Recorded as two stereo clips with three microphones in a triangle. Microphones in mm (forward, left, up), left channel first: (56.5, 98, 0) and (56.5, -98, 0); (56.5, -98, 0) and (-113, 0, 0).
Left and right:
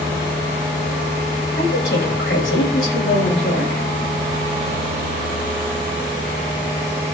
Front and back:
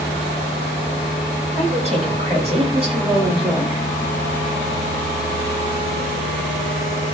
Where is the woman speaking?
95° left, 7.5 m; by 3.8 s 85° left, 7.5 m.